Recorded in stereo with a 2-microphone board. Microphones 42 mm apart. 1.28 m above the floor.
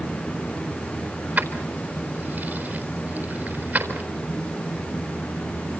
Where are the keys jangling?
40° right (ahead or behind), 4 m.